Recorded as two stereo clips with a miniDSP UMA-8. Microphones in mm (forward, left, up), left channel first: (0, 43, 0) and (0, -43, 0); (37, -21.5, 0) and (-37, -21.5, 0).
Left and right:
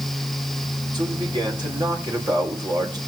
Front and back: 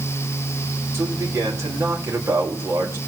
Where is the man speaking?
125° right, 3.5 m.